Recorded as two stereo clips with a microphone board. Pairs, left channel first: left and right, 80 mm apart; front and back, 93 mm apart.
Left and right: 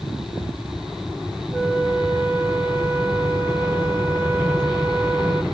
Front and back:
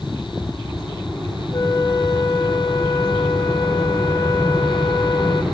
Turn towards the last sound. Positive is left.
turn(degrees=-25)